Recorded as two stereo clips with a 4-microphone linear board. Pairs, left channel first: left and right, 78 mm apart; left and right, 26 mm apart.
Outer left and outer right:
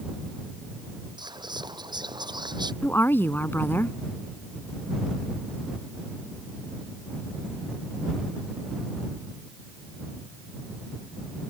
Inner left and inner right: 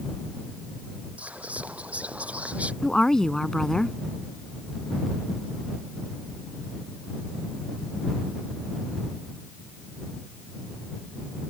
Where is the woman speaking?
25° left (ahead or behind).